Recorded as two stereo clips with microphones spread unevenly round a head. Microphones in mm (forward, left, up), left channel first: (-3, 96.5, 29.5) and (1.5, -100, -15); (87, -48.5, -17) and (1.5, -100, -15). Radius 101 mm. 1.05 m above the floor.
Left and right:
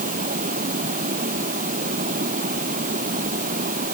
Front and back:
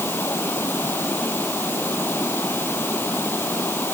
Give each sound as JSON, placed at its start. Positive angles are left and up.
{"t": 0.0, "sound": "running water", "azimuth_deg": -35}